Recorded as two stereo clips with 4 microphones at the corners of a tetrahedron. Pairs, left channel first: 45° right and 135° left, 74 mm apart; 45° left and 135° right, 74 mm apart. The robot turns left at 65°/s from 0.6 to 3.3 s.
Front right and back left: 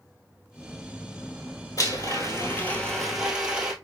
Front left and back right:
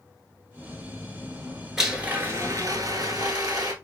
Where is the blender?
50° right, 1.1 m; by 3.7 s 150° right, 1.1 m.